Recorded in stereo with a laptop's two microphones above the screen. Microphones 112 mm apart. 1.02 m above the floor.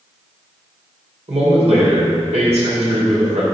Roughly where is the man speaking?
Right.